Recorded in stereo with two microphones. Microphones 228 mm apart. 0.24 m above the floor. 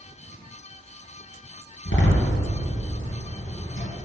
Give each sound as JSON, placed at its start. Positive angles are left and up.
{"t": 1.9, "sound": "a door slam", "side_deg": 60, "distance_m": 3.0}